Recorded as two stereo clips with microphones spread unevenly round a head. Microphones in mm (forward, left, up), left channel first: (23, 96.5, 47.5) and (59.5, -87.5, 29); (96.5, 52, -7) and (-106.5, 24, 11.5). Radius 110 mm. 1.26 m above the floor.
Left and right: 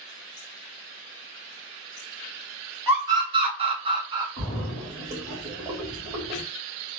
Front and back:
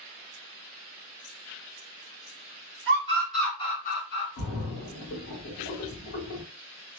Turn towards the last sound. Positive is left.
turn(degrees=-25)